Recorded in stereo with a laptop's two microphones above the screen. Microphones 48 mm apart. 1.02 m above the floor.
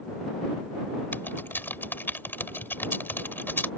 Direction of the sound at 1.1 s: 45° left (ahead or behind).